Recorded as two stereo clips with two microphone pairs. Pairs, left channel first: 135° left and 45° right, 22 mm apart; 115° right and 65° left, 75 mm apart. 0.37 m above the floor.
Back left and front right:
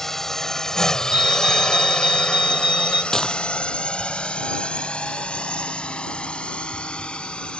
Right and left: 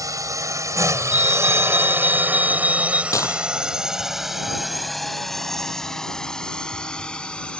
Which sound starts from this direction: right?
A fire alarm, at 1.1 s.